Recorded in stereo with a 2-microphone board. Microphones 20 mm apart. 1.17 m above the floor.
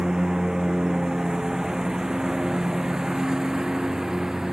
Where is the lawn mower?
30° right (ahead or behind); by 4.5 s 25° right (ahead or behind).